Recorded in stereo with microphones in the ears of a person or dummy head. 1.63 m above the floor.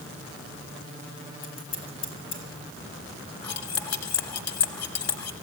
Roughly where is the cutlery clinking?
Left.